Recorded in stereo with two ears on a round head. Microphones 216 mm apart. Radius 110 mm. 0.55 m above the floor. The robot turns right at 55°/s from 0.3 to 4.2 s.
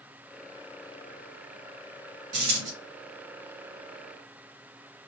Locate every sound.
2.3 s a dropped coin: 45° right (ahead or behind), 3 m; by 2.7 s 25° right (ahead or behind), 3 m